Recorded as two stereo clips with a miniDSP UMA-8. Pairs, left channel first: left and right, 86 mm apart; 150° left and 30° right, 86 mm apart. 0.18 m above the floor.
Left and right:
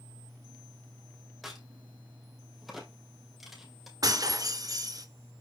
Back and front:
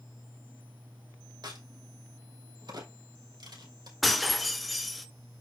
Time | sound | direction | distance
1.4 | a crack | straight ahead | 3 m
4.0 | breaking glass | 120° right | 1.1 m